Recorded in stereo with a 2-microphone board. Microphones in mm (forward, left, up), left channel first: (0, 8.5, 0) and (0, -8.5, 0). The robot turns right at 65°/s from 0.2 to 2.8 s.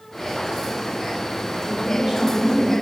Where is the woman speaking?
85° right, 2.5 m; by 2.7 s 15° right, 2.5 m.